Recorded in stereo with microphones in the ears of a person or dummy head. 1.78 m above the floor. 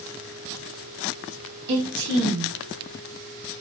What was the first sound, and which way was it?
A woman speaking, 70° right (ahead or behind).